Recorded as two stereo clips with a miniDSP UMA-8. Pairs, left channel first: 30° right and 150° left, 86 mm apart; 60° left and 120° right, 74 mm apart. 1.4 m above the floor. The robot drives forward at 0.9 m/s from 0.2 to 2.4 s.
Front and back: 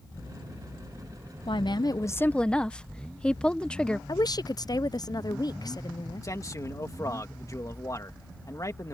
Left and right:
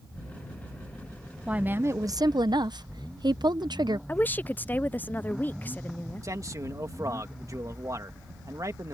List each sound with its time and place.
1.5 s a woman speaking: 45° right; by 4.0 s 110° right
4.1 s a woman speaking: straight ahead
6.2 s a man speaking: 80° right